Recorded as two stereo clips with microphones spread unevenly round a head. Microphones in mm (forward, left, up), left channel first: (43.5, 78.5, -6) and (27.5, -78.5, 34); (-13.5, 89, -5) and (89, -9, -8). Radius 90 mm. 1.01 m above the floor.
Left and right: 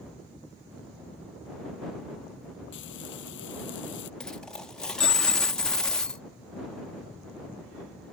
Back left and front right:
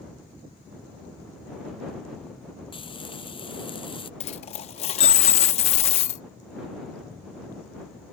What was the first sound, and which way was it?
Frying, 85° left.